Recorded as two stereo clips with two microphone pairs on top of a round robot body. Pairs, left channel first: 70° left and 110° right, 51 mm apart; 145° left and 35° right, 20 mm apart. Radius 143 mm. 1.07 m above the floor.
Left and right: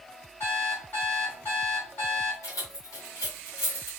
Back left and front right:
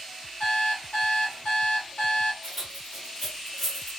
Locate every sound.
0.4 s an alarm clock: 120° left, 2 m
2.4 s keys jangling: 55° left, 2.5 m